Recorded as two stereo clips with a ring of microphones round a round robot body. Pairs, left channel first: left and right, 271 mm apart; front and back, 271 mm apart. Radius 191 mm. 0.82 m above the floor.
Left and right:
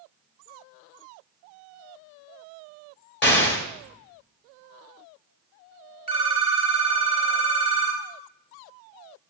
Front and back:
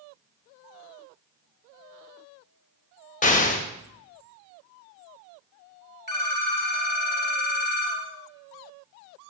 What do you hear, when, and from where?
3.2 s an explosion: 55° left, 1.3 m
6.1 s a phone ringing: 55° left, 2 m